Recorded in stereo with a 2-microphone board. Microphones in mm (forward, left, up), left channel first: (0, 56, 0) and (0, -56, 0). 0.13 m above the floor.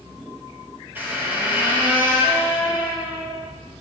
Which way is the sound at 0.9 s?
15° right (ahead or behind).